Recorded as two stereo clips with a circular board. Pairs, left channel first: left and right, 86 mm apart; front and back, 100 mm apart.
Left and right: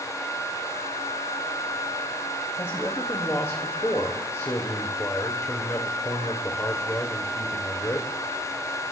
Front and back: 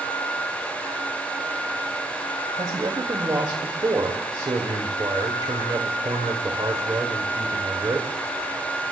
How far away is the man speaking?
About 1.7 m.